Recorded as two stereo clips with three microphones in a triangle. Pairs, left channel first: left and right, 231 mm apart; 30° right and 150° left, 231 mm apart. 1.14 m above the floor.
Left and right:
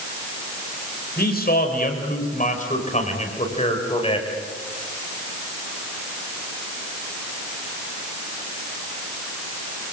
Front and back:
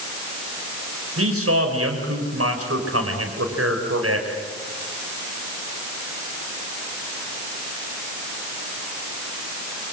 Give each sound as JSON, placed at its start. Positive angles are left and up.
{"t": 1.2, "sound": "a man speaking", "azimuth_deg": 135, "distance_m": 5.5}